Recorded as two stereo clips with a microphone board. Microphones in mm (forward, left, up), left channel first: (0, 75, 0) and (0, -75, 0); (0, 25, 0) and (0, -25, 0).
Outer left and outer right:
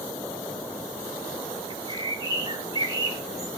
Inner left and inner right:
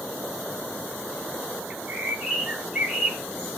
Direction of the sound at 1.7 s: 25° right (ahead or behind).